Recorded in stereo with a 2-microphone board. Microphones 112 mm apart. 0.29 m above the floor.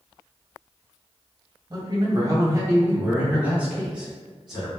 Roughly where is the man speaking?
Right.